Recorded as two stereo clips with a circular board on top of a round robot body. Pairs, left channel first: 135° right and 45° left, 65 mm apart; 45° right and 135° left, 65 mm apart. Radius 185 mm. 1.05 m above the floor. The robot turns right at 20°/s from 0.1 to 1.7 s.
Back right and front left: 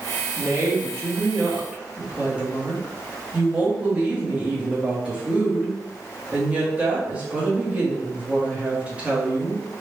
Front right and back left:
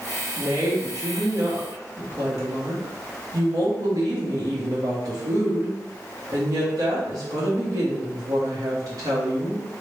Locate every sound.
0.4 s a woman speaking: 85° left, 1.6 m; by 9.6 s 115° left, 1.6 m